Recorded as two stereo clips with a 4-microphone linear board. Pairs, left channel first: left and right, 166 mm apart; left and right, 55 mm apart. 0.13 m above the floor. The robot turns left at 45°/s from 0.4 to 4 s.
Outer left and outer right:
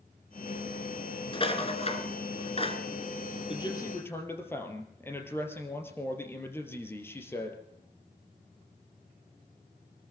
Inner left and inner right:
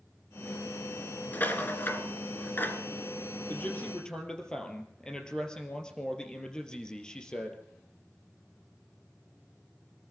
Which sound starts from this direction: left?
A man speaking, at 3.5 s.